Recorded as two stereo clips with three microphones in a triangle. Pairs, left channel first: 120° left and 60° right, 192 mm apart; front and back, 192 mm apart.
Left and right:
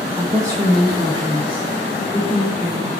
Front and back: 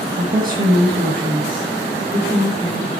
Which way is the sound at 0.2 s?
140° right.